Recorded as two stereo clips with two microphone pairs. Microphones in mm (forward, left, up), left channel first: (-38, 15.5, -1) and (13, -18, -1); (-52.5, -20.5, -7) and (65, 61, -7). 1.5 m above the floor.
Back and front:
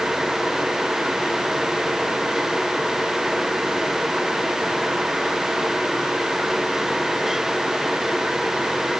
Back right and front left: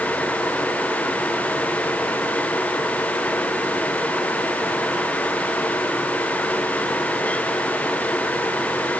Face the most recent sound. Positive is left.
No sound to turn to.